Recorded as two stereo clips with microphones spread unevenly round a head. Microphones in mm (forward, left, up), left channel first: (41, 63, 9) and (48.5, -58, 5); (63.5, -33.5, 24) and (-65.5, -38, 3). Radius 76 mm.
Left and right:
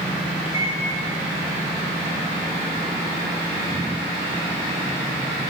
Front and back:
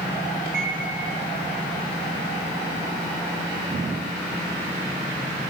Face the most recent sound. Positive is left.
turn(degrees=150)